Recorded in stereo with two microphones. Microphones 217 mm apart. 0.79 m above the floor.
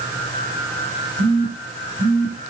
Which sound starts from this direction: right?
A phone buzzing, at 1.2 s.